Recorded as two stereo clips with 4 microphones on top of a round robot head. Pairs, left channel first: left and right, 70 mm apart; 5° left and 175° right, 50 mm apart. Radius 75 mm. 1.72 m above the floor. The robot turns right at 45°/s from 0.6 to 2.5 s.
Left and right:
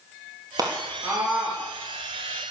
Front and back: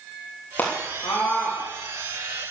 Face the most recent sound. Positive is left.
turn(degrees=30)